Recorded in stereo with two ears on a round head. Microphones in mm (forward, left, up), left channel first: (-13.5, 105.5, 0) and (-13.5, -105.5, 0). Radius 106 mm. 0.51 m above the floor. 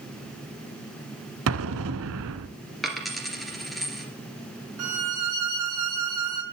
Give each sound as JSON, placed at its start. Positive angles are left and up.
{"t": 1.5, "sound": "an explosion", "side_deg": -60, "distance_m": 0.9}
{"t": 2.8, "sound": "a dropped coin", "side_deg": 0, "distance_m": 2.0}
{"t": 4.8, "sound": "a violin", "side_deg": -70, "distance_m": 3.5}